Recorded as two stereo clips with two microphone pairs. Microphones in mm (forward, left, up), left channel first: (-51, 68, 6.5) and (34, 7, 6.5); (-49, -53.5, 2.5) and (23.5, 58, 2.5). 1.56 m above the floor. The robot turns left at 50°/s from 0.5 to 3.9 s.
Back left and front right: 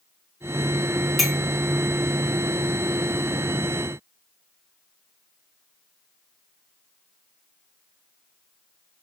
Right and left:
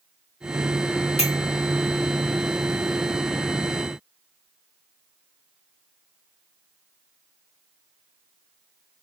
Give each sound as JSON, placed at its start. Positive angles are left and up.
{"t": 1.2, "sound": "a clink", "azimuth_deg": -125, "distance_m": 1.0}